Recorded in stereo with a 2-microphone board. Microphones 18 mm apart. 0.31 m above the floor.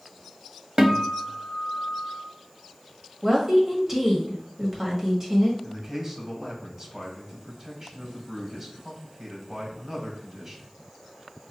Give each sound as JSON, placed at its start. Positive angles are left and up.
{"t": 0.8, "sound": "a guitar", "side_deg": -45, "distance_m": 0.7}
{"t": 3.2, "sound": "a woman speaking", "side_deg": -25, "distance_m": 1.5}
{"t": 5.6, "sound": "a man speaking", "side_deg": -35, "distance_m": 2.0}